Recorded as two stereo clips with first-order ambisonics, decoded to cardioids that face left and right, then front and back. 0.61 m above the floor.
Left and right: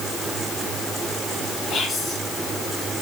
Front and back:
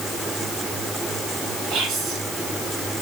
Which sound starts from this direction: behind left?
Whispering, at 1.7 s.